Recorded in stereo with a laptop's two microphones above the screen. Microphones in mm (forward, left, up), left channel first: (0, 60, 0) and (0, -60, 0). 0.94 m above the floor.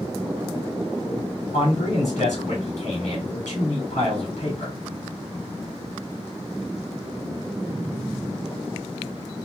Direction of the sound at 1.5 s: 80° left.